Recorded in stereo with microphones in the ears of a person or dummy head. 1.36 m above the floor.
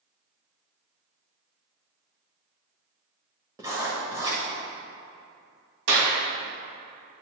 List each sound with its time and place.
3.6 s writing: 10° right (ahead or behind), 1.6 m
5.9 s a clap: 65° right (ahead or behind), 2 m